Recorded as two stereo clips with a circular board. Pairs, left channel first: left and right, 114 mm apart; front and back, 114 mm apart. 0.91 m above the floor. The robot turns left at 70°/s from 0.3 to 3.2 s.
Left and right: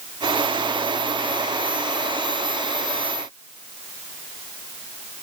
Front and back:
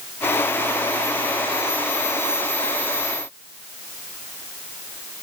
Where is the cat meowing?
I don't hear a cat meowing.